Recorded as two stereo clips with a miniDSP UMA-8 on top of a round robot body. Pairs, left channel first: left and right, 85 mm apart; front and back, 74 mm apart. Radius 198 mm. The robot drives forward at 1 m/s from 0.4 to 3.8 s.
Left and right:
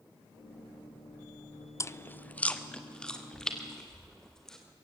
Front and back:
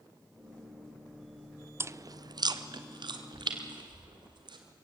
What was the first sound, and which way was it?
Chewing, 135° left.